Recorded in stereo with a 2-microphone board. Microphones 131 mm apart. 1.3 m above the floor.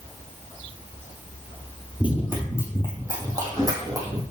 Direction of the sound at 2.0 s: 10° right (ahead or behind).